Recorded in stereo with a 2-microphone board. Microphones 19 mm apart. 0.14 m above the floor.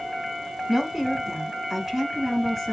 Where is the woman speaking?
25° right (ahead or behind), 1.4 m; by 2.7 s 5° right (ahead or behind), 1.9 m.